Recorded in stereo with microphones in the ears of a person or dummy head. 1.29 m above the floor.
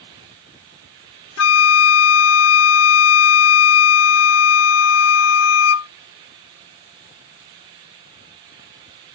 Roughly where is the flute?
Left.